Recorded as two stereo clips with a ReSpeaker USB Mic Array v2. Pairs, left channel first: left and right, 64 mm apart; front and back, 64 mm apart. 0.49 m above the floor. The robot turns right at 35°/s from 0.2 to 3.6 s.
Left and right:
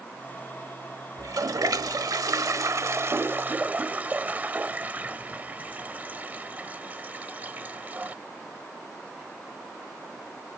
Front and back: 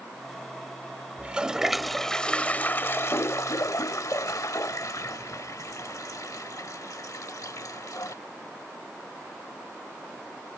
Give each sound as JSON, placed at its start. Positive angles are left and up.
{"t": 1.2, "sound": "a toilet flushing", "azimuth_deg": -110}